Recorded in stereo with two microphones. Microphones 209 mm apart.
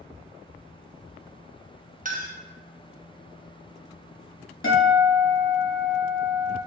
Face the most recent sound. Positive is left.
turn(degrees=70)  # may be behind; listen again after turning